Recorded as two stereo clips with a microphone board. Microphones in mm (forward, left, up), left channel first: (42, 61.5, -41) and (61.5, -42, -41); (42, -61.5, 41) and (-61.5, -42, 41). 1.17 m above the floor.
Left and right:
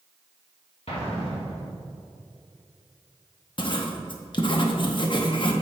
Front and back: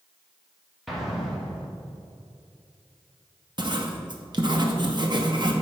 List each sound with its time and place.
0.9 s an explosion: 80° left, 1.7 m
3.6 s writing: 135° left, 0.8 m